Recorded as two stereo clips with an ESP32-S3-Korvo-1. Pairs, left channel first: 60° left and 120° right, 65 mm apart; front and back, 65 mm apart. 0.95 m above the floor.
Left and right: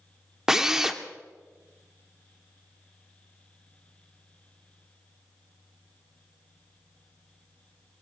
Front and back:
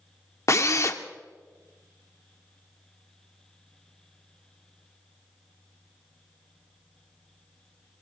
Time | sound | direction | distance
0.5 | a drill | 40° right | 1.1 m